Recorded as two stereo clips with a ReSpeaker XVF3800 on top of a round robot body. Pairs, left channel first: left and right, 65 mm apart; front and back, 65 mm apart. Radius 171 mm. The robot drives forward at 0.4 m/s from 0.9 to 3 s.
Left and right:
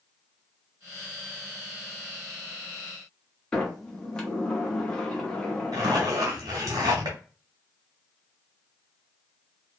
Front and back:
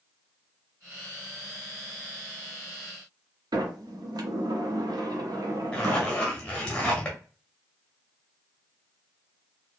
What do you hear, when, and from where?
3.5 s a sliding door: 170° left, 0.6 m
5.7 s a zipper: 75° right, 0.5 m